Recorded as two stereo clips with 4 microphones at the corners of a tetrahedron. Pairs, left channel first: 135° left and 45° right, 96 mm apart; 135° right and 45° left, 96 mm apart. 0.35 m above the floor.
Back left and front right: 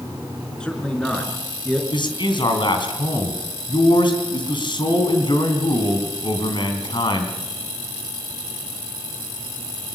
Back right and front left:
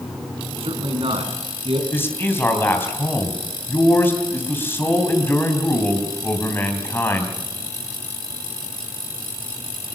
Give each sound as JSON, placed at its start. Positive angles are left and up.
{"t": 0.6, "sound": "a man speaking", "azimuth_deg": 55, "distance_m": 4.5}
{"t": 1.9, "sound": "a man speaking", "azimuth_deg": 160, "distance_m": 3.5}